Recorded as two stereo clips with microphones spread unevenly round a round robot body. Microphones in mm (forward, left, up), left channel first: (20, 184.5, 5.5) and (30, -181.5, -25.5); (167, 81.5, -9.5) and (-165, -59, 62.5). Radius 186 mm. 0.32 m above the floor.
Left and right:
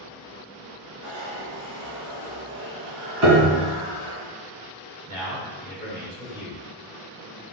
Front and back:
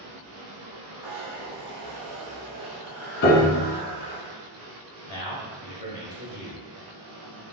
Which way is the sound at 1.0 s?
130° right.